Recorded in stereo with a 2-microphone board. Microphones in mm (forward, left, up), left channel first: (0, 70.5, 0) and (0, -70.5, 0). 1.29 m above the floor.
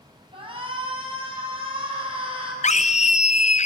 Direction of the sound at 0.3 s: 40° right (ahead or behind).